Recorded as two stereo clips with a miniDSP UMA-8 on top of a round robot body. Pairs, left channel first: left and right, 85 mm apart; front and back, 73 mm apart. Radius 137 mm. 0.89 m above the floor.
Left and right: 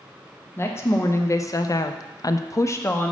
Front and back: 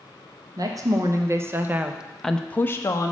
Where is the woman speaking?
150° left, 1.1 m; by 3.1 s 30° left, 0.7 m.